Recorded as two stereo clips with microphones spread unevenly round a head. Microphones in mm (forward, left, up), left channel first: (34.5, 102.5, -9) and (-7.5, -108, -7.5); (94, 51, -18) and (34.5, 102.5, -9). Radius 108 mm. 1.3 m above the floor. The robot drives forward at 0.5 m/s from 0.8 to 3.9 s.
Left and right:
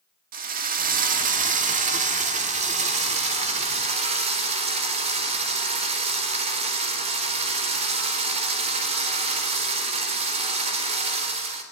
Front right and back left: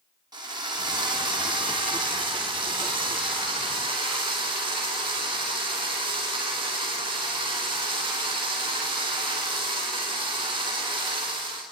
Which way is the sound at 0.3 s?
155° right.